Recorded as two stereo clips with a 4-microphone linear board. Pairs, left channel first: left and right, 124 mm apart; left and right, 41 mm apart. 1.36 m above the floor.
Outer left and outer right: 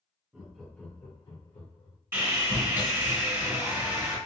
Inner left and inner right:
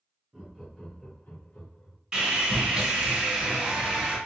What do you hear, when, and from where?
0.3 s laughter: 15° right (ahead or behind), 0.6 m; by 2.0 s 65° left (ahead or behind), 0.8 m
2.1 s sawing: 20° right (ahead or behind), 1.6 m